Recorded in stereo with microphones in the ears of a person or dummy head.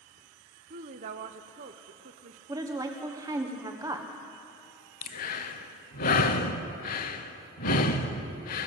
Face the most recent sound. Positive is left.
turn(degrees=50)  # may be behind; listen again after turning